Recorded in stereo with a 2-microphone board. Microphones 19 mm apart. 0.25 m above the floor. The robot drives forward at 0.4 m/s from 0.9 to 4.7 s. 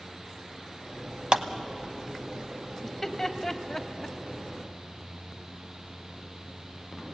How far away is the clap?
About 1.0 m.